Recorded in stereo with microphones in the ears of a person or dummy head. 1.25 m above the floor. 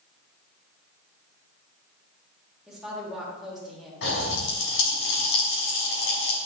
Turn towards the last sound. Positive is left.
turn(degrees=80)